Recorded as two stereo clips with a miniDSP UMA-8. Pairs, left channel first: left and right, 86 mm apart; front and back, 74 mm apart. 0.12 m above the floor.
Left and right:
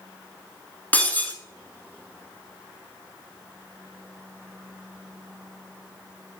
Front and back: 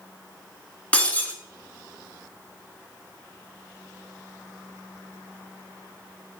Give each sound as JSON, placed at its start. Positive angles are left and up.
{"t": 0.9, "sound": "breaking glass", "azimuth_deg": 45, "distance_m": 0.9}